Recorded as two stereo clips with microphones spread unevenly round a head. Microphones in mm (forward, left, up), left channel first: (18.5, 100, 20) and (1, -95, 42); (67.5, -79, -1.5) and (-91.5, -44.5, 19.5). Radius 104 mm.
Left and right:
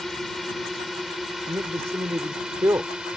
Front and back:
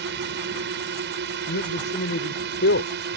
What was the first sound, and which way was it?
A drone, 175° left.